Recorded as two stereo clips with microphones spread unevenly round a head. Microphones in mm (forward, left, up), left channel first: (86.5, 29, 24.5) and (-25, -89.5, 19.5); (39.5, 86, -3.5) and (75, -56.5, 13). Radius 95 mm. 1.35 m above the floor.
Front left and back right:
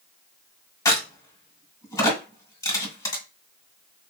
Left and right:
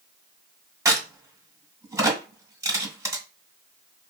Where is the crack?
15° right, 2 m.